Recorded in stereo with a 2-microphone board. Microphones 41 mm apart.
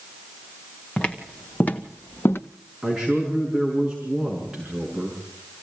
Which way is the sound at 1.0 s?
25° left (ahead or behind).